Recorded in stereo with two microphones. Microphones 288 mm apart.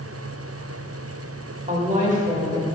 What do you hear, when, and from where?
1.7 s a woman speaking: 25° right (ahead or behind), 1.1 m